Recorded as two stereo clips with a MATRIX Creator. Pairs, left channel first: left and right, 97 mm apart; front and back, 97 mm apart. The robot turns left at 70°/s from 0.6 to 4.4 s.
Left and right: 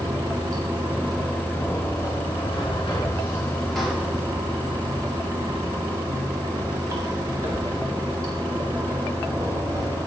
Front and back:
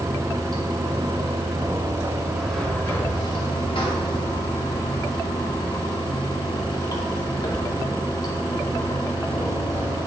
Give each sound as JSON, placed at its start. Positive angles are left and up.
{"t": 0.0, "sound": "running water", "azimuth_deg": -140, "distance_m": 1.9}